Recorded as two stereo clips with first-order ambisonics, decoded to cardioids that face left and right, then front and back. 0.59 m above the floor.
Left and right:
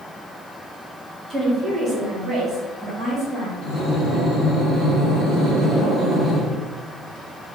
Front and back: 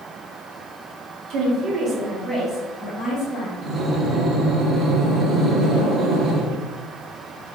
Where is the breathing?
170° right, 1.0 m.